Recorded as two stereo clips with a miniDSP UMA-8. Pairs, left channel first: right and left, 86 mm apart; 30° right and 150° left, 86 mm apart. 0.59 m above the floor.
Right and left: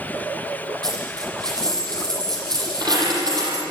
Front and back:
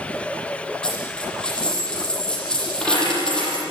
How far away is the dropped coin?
About 9 m.